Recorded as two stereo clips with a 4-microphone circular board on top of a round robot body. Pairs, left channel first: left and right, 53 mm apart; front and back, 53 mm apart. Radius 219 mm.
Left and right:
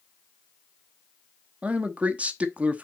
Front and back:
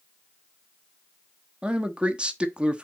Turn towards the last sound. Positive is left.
turn(degrees=-130)